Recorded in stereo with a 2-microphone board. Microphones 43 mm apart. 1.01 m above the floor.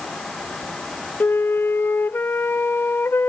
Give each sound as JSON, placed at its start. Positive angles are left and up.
{"t": 1.2, "sound": "a flute", "side_deg": 60, "distance_m": 0.5}